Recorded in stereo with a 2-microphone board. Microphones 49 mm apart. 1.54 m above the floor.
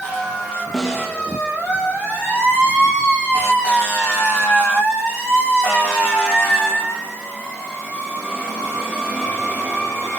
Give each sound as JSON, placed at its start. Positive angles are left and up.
{"t": 0.7, "sound": "a snare drum", "side_deg": 10, "distance_m": 2.5}